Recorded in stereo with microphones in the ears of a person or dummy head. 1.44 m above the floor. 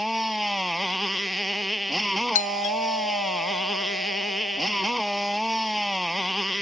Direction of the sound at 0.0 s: 5° right (ahead or behind).